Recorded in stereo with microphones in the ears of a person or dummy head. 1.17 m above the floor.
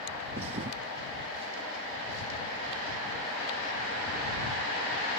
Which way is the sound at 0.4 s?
35° right (ahead or behind).